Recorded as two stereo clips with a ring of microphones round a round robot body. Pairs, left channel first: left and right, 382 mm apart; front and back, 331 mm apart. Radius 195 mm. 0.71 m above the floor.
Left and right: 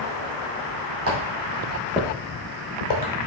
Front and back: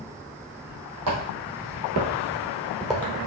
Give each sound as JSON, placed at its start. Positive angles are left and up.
{"t": 1.1, "sound": "footsteps", "azimuth_deg": -140, "distance_m": 1.9}